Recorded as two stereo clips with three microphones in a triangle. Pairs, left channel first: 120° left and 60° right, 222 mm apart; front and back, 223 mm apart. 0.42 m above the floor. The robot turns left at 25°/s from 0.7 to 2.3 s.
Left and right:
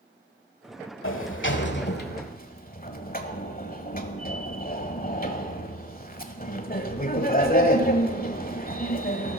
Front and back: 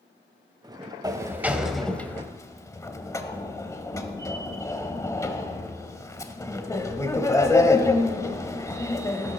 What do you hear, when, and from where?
1.0 s a sliding door: 105° left, 1.2 m; by 9.4 s 75° left, 1.2 m